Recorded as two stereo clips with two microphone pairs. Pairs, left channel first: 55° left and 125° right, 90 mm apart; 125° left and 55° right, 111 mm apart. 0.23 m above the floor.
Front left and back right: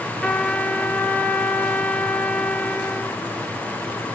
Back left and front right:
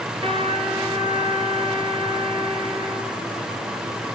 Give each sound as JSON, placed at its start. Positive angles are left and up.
{"t": 0.2, "sound": "a trumpet", "azimuth_deg": -25, "distance_m": 2.5}